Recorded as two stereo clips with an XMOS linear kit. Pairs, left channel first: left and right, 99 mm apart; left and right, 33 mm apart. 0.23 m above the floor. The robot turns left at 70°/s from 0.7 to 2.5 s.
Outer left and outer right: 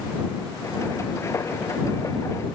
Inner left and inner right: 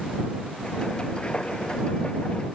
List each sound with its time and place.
Only background noise.